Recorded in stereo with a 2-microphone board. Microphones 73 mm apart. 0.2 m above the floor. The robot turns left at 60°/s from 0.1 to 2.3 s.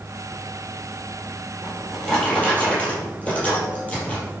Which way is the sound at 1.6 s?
160° right.